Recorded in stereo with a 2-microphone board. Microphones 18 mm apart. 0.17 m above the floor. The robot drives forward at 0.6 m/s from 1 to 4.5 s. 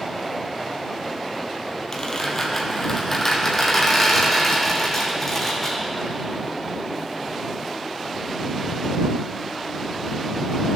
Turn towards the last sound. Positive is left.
turn(degrees=20)  # may be behind; listen again after turning